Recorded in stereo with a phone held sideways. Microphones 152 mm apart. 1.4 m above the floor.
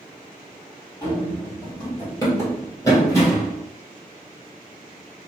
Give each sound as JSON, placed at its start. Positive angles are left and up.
{"t": 1.0, "sound": "running footsteps", "side_deg": 20, "distance_m": 1.6}